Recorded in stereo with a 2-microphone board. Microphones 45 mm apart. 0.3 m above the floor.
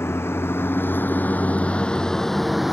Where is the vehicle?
65° left (ahead or behind); by 2.8 s 5° right (ahead or behind).